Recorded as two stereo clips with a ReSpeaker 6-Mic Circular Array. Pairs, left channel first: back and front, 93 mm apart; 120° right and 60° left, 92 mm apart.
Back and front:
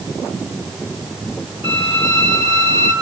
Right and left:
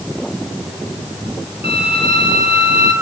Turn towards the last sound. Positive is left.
turn(degrees=-10)